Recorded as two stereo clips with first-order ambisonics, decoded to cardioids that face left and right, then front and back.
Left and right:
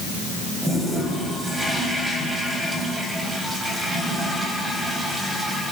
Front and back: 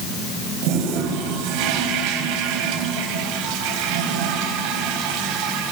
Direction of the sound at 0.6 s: 170° right.